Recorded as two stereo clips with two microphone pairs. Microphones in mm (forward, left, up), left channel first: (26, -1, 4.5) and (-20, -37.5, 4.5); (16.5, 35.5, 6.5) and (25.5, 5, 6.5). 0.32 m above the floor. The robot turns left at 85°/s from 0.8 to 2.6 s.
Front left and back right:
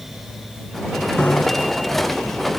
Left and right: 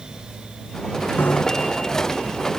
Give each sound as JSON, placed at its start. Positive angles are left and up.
{"t": 1.2, "sound": "a bicycle bell", "azimuth_deg": 115}